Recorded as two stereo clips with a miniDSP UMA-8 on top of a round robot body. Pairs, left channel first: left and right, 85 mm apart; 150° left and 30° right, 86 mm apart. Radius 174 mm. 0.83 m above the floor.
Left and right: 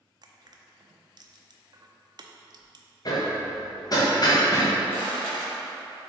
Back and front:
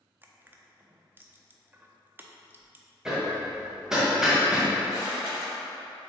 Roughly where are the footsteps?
Ahead left.